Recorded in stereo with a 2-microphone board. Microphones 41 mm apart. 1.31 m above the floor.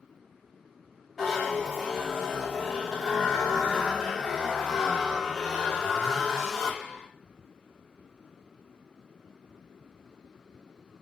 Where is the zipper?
Centre (ahead or behind), 2.5 m.